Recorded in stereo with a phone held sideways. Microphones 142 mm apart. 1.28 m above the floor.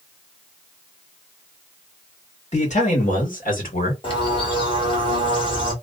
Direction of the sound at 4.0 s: 40° left (ahead or behind).